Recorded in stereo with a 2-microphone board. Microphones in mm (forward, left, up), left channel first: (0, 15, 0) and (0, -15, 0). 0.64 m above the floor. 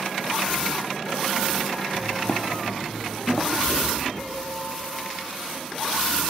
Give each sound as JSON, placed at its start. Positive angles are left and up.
{"t": 1.9, "sound": "footsteps", "side_deg": 15, "distance_m": 0.8}
{"t": 3.6, "sound": "knocking", "side_deg": 45, "distance_m": 5.0}